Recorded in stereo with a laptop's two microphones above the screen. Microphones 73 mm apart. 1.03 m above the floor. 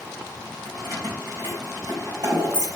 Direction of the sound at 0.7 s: 75° right (ahead or behind).